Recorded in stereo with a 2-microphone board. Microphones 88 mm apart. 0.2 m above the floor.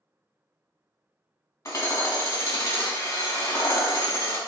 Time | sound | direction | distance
1.6 | hammering | 35° left (ahead or behind) | 0.7 m